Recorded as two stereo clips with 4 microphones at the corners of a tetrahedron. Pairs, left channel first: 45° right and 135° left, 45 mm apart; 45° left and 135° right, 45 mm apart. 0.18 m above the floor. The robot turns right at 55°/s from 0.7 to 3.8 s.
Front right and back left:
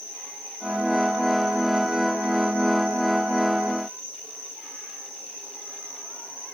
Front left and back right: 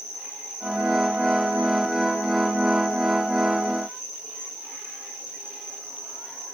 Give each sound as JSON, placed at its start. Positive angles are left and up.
{"t": 0.0, "sound": "an insect", "azimuth_deg": 0, "distance_m": 4.0}